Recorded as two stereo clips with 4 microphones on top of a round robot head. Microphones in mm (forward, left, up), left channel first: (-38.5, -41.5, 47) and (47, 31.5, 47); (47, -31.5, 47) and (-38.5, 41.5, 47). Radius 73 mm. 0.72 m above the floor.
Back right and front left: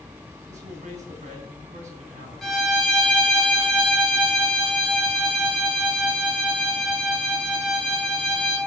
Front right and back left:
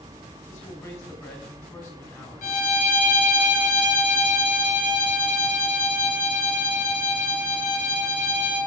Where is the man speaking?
25° left, 4 m.